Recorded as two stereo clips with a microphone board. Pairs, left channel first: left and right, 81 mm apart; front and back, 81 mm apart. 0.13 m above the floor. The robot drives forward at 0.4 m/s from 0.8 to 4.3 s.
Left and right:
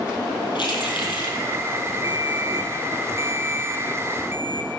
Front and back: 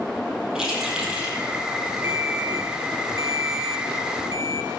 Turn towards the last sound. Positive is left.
turn(degrees=-150)